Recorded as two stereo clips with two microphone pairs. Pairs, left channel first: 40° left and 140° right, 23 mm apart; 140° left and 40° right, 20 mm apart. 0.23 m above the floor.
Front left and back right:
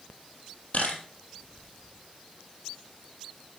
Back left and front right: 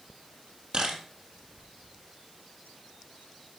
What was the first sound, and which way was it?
A camera shutter, 5° left.